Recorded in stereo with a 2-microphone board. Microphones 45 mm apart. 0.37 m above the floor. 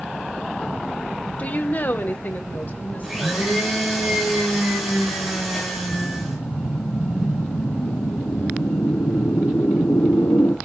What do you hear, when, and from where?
1.4 s a woman speaking: 35° left (ahead or behind), 0.9 m; by 3.6 s 40° left (ahead or behind), 3 m
3.0 s a blender: 5° right (ahead or behind), 7.5 m
5.9 s a whoosh: 65° left (ahead or behind), 1.5 m